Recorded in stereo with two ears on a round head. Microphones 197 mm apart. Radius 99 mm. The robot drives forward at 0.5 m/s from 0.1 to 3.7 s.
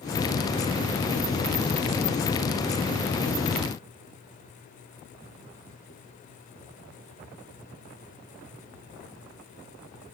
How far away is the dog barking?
No dog barking in this recording.